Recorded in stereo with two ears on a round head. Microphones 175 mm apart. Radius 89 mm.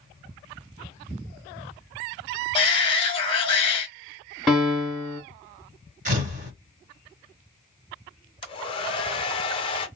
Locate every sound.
2.5 s a shout: 30° left (ahead or behind), 1.4 m
4.5 s a piano: centre (ahead or behind), 1.2 m
6.0 s a camera shutter: 40° right (ahead or behind), 1.8 m
8.4 s a hair dryer: 25° left (ahead or behind), 0.7 m